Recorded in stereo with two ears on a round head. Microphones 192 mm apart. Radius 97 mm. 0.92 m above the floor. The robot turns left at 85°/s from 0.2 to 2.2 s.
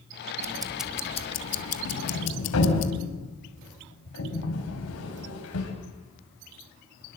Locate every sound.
0.4 s ticking: 145° right, 1.4 m; by 2.9 s 65° left, 1.4 m
1.9 s a sliding door: 75° left (ahead or behind), 5.5 m